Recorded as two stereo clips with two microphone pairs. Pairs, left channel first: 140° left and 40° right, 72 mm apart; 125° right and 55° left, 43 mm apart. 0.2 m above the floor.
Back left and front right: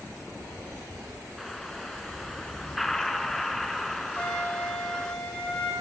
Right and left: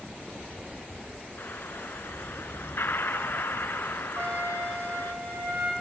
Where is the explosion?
135° right, 1.1 m.